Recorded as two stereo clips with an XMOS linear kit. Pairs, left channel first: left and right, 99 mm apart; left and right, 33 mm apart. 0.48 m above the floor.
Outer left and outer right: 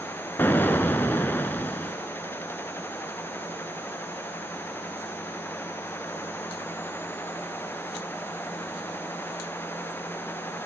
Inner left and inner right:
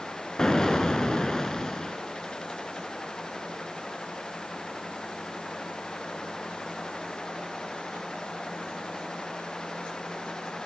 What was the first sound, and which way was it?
An explosion, 20° left (ahead or behind).